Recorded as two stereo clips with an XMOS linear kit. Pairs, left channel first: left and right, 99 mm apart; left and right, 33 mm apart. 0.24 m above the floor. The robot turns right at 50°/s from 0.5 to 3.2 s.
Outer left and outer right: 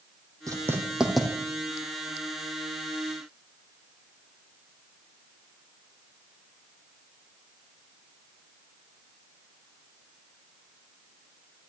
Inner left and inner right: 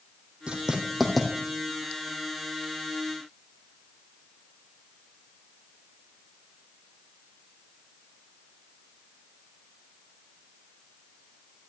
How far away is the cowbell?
No cowbell in this recording.